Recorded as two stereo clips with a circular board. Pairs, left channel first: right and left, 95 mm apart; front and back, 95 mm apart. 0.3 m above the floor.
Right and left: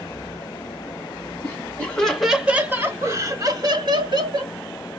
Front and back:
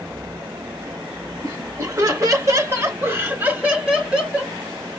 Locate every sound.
1.4 s laughter: 145° right, 1.5 m; by 4.5 s 95° left, 2 m